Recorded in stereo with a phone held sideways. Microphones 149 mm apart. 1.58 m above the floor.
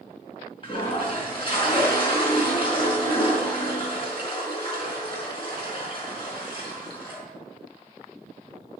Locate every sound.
0.6 s a toilet flushing: 35° left (ahead or behind), 5 m